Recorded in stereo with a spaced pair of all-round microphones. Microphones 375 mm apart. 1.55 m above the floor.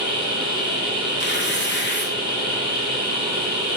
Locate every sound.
0.0 s a machine running: 15° right (ahead or behind), 1.4 m
1.2 s tearing paper: 30° left (ahead or behind), 0.7 m